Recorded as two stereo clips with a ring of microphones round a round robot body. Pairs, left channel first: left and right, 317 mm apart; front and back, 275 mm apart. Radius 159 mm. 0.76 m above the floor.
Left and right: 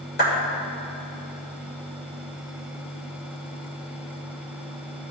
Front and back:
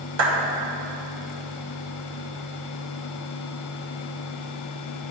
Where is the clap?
150° left, 3 m.